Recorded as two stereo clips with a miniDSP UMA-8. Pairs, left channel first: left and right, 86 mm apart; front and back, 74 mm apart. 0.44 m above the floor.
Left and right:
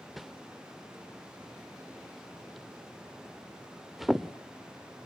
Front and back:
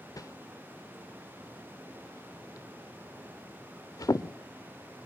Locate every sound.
0.2 s a whoosh: straight ahead, 0.6 m